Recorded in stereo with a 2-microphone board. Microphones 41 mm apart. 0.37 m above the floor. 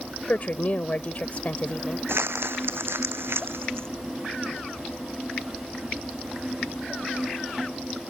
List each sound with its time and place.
0.3 s a woman speaking: 40° left (ahead or behind)
2.1 s crumpling: 80° right